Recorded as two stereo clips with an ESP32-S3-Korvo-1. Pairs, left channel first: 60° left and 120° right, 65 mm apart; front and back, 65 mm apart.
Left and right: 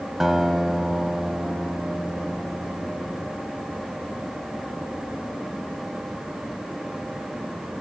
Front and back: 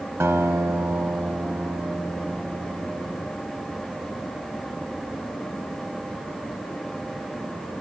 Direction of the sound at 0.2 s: 155° left.